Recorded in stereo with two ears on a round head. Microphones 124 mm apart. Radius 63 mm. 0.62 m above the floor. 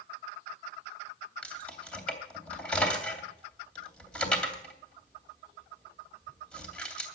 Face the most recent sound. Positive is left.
turn(degrees=10)  # may be behind; listen again after turning